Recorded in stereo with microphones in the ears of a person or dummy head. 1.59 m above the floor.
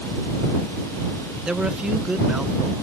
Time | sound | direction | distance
1.4 | a man speaking | centre (ahead or behind) | ?